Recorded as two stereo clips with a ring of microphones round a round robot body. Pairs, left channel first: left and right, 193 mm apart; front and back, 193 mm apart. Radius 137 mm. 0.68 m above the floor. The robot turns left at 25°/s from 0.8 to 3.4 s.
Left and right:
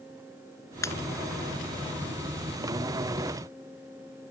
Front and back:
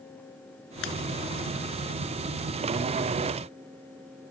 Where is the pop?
15° left.